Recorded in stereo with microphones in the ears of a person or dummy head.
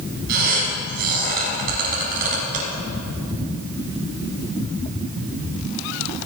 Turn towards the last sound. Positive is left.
turn(degrees=-55)  # may be behind; listen again after turning